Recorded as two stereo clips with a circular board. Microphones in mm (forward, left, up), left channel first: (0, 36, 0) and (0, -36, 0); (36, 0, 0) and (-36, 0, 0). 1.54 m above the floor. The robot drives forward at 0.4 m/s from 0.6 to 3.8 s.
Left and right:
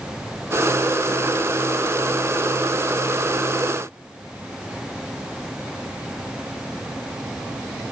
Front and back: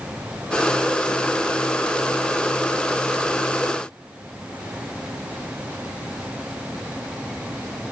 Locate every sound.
Only background noise.